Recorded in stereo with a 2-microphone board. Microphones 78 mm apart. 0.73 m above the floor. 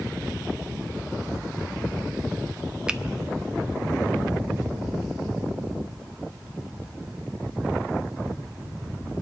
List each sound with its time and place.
2.9 s a finger snap: 10° right (ahead or behind), 0.5 m